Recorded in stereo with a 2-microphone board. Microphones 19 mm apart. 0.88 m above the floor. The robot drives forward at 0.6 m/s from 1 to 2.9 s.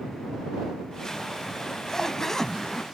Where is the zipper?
30° left (ahead or behind); by 2.8 s 20° left (ahead or behind).